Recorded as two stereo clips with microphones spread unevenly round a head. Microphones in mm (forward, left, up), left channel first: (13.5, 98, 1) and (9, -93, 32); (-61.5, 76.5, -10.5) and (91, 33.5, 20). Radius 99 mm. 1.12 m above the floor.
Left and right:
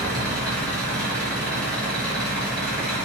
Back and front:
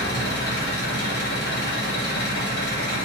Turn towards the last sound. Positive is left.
turn(degrees=170)